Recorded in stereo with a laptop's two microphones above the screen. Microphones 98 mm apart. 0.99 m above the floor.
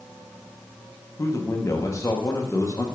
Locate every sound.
1.2 s a man speaking: 30° left (ahead or behind), 0.9 m